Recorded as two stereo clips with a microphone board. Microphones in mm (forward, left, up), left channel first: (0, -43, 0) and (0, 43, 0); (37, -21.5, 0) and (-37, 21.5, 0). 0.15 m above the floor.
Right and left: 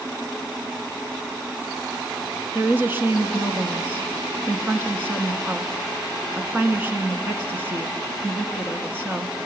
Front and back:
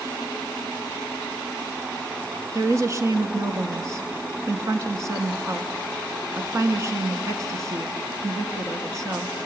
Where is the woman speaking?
140° left, 1.3 m.